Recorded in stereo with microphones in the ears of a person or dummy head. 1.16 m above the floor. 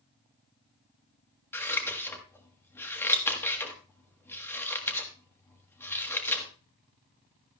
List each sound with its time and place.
1.5 s scissors: 10° left (ahead or behind), 1.3 m